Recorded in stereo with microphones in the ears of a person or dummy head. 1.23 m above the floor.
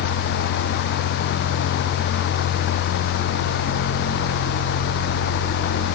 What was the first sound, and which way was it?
Only background noise.